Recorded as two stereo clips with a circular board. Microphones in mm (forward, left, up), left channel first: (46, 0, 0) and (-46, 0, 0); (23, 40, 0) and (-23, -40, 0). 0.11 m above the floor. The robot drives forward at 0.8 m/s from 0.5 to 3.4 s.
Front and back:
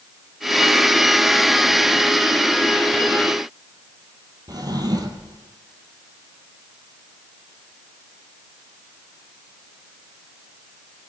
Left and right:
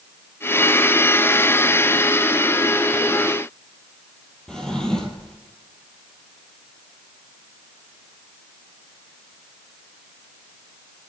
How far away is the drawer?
About 2 m.